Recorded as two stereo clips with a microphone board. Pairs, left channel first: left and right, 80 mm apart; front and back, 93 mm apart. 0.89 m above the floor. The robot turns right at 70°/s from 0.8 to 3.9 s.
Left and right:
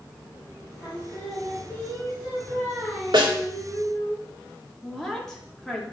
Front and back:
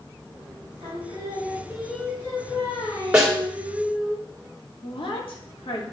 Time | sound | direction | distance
0.8 | singing | 165° right | 5 m
3.1 | a snare drum | 100° right | 2.0 m
4.8 | a woman speaking | 5° left | 2.5 m